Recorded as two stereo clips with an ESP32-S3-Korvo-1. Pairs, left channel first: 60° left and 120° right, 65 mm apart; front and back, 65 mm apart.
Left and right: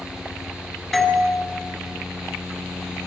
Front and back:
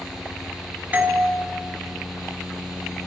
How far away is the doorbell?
About 1.8 m.